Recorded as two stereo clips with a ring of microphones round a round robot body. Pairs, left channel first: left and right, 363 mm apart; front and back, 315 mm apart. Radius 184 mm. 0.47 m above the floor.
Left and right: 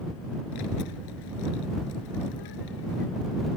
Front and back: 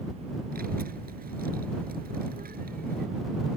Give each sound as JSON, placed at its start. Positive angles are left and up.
{"t": 0.5, "sound": "a child speaking", "azimuth_deg": 120}